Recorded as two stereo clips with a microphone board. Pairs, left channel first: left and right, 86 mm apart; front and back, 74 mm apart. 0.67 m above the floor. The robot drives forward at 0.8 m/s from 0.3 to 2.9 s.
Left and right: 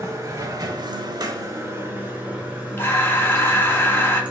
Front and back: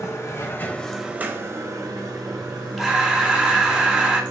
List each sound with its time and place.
0.0 s running water: 40° right, 0.8 m; by 4.3 s 165° right, 1.7 m
2.8 s breathing: 90° left, 0.6 m; by 4.2 s 115° left, 0.6 m